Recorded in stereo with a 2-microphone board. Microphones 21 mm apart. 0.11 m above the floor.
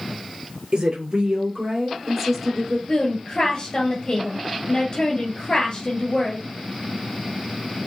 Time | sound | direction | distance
0.7 | a woman speaking | 50° right (ahead or behind) | 2.0 m
2.9 | a woman speaking | 35° left (ahead or behind) | 1.6 m